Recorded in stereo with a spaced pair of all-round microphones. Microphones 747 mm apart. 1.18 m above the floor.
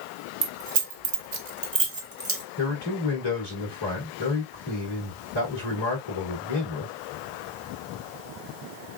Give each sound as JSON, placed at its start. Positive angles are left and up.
{"t": 0.4, "sound": "keys jangling", "side_deg": -75, "distance_m": 1.1}
{"t": 2.6, "sound": "a man speaking", "side_deg": 30, "distance_m": 2.5}